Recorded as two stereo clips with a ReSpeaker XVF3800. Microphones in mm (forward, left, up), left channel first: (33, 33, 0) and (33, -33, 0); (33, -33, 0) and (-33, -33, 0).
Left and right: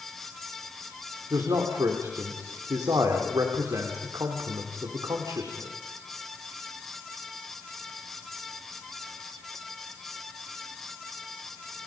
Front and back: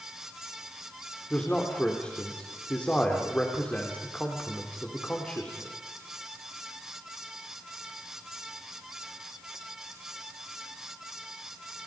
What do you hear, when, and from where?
1.3 s a man speaking: 70° right, 3.5 m